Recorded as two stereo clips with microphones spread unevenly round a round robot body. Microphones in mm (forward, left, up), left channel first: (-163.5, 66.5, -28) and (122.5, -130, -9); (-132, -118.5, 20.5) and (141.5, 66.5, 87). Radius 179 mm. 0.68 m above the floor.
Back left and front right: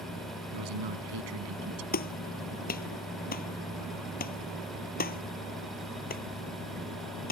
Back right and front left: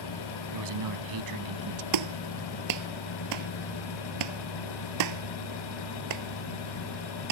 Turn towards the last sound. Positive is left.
turn(degrees=75)